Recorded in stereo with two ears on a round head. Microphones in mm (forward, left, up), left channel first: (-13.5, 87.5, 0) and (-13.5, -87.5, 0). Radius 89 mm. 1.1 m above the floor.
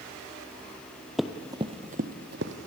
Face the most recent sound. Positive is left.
turn(degrees=-60)  # may be behind; listen again after turning